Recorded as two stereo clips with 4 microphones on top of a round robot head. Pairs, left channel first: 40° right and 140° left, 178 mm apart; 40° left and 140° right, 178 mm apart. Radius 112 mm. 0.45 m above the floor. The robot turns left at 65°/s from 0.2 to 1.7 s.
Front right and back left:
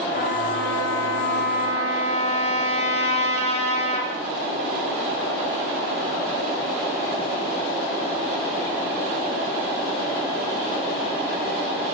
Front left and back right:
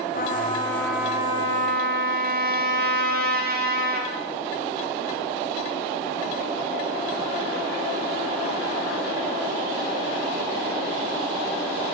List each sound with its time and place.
0.1 s a trumpet: straight ahead, 6 m; by 4.1 s 100° right, 6 m